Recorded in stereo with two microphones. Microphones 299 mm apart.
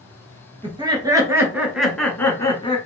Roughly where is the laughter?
Centre.